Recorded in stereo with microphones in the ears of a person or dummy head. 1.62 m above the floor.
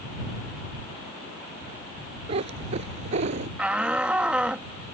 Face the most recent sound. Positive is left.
turn(degrees=-10)  # may be behind; listen again after turning